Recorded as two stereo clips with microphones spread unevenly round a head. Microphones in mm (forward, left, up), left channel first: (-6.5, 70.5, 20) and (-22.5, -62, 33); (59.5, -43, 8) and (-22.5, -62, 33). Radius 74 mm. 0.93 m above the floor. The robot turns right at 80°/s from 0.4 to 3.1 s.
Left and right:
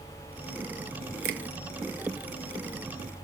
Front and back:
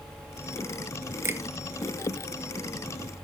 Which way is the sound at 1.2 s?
105° right.